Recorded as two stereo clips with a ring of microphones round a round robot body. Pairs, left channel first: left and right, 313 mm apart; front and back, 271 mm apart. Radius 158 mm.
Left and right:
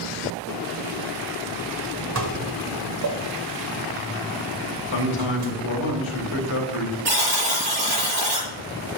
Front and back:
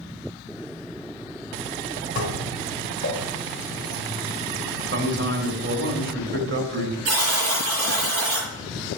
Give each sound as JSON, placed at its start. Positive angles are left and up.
{"t": 2.1, "sound": "dishes clattering", "azimuth_deg": -60, "distance_m": 1.5}
{"t": 4.9, "sound": "a man speaking", "azimuth_deg": 135, "distance_m": 3.5}
{"t": 7.0, "sound": "a buzzer", "azimuth_deg": -130, "distance_m": 6.5}